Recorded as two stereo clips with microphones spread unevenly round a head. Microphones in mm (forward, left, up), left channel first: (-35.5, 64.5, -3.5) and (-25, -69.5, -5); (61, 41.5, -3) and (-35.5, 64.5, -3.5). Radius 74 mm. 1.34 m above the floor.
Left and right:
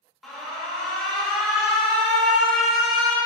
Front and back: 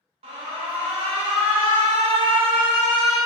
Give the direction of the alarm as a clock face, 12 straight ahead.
6 o'clock.